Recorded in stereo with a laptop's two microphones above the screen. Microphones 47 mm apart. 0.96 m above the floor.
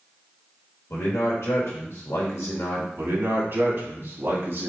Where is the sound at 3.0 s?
50° right (ahead or behind), 1.6 m.